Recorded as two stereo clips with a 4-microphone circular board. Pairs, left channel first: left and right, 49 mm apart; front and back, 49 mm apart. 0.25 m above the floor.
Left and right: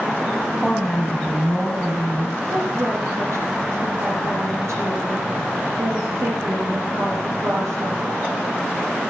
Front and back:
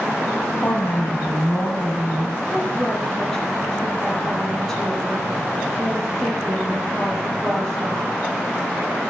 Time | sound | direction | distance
0.6 | a woman speaking | 5° left | 2 m
2.5 | a woman speaking | 80° right | 6.5 m